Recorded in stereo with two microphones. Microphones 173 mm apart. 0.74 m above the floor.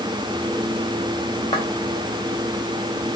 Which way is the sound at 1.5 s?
30° left (ahead or behind).